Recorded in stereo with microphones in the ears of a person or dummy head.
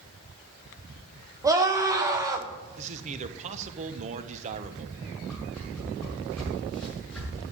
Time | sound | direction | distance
1.4 | a scream | 15° right (ahead or behind) | 1.8 m
2.8 | a man speaking | 40° right (ahead or behind) | 1.2 m
5.3 | a whoosh | 10° left (ahead or behind) | 7 m